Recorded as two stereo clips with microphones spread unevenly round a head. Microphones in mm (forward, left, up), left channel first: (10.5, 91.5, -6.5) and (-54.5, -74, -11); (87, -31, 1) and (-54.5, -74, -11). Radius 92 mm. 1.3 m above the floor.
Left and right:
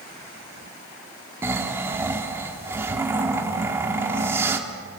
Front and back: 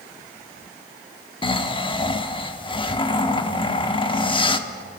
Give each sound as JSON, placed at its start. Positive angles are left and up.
{"t": 1.4, "sound": "snoring", "azimuth_deg": -35, "distance_m": 1.4}